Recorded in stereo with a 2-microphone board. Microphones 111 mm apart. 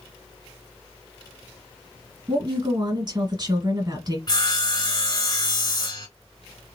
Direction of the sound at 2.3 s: 40° right (ahead or behind).